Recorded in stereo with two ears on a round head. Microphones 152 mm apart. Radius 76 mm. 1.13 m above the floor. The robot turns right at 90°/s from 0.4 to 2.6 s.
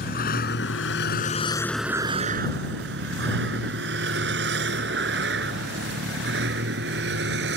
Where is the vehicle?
55° left (ahead or behind); by 7.6 s 70° right (ahead or behind).